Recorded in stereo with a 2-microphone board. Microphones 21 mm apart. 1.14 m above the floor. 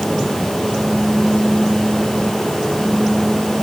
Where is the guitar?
No guitar in this recording.